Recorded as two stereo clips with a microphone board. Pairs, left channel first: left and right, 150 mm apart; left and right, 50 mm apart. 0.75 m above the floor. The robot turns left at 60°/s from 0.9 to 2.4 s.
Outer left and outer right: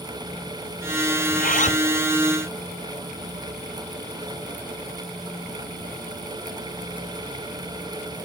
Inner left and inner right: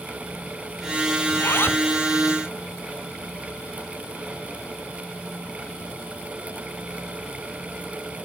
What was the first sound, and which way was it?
A zipper, 75° left.